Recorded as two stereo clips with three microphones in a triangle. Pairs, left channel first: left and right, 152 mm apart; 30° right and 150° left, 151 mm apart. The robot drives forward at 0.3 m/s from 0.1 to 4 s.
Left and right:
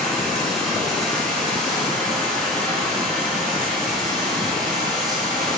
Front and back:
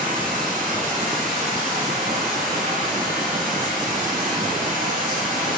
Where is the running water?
175° left, 4.5 m; by 5.6 s straight behind, 5.5 m.